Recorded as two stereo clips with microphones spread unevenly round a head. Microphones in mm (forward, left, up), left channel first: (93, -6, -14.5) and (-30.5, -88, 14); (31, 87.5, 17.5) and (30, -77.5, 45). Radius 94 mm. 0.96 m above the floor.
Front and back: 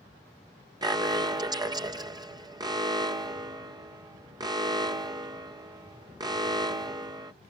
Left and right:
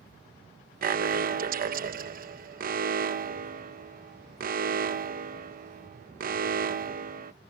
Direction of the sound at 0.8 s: 80° right.